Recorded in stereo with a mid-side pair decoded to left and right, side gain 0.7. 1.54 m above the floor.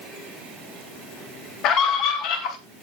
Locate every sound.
1.6 s a scream: 55° left, 1.0 m